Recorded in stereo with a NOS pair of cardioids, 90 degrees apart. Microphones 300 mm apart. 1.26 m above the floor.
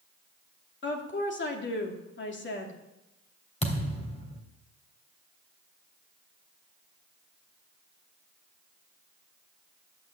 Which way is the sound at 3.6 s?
20° left.